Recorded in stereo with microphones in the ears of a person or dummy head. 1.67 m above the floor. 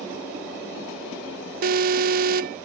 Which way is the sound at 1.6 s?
50° right (ahead or behind).